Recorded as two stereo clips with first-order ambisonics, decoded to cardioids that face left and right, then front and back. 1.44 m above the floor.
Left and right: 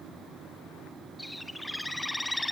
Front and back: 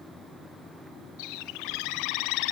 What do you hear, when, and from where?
1.2 s a bird: 5° left, 0.5 m